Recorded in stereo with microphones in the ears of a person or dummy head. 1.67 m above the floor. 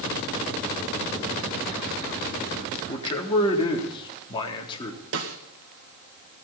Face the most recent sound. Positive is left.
turn(degrees=-70)  # may be behind; listen again after turning